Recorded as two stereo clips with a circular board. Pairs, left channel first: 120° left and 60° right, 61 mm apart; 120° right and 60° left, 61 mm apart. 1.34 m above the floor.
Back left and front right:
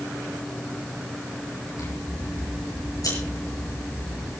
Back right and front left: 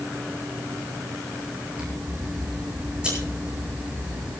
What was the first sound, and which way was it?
Scissors, 135° left.